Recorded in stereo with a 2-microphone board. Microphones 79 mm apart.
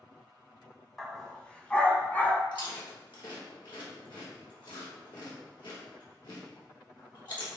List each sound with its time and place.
1.0 s a dog barking: 5° left (ahead or behind), 1.6 m; by 2.4 s 20° left (ahead or behind), 2.0 m
2.5 s chewing: 75° left (ahead or behind), 3.5 m